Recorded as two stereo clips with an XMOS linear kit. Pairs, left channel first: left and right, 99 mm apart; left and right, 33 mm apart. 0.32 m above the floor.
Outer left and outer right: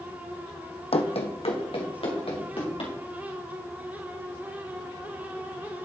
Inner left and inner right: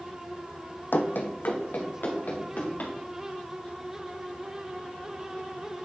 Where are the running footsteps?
75° left (ahead or behind), 0.9 m; by 2.9 s 65° left (ahead or behind), 3.5 m.